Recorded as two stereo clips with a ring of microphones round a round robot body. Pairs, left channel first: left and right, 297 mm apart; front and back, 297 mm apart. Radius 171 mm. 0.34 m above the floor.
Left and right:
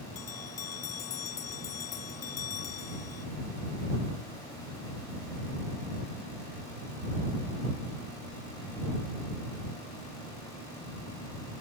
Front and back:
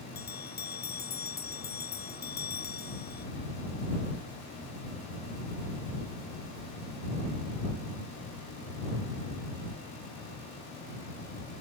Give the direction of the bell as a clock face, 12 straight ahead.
10 o'clock.